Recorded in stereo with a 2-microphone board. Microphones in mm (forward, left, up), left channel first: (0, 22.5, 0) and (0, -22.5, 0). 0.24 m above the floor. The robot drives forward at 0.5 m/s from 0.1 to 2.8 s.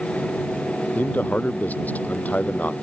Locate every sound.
0.9 s a man speaking: 40° left (ahead or behind); by 2.7 s 35° left (ahead or behind)